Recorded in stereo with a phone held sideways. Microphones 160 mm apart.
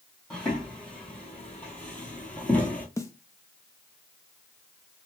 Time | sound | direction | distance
0.3 | footsteps | 5° left (ahead or behind) | 1.8 m
3.0 | a snare drum | 20° left (ahead or behind) | 0.5 m